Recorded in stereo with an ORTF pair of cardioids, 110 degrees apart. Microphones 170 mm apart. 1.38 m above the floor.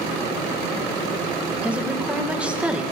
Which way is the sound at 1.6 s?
5° right.